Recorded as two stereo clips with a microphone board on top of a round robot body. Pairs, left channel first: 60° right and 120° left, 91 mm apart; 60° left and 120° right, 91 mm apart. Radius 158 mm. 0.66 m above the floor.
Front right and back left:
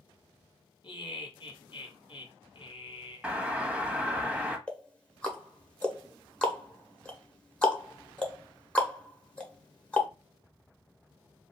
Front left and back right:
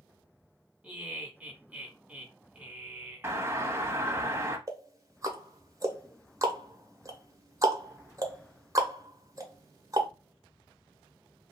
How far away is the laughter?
About 1.5 m.